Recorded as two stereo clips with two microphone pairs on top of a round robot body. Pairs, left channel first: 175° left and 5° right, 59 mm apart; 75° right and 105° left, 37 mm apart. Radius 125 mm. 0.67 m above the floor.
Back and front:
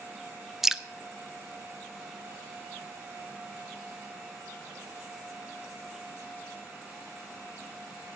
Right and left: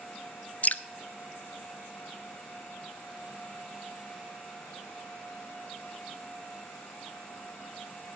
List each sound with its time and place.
0.6 s dripping: 85° right, 0.7 m